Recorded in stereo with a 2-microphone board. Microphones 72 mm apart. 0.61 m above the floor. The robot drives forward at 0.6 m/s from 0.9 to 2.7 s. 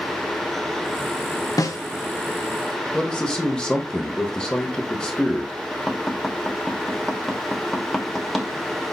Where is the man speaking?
15° left (ahead or behind), 1.1 m.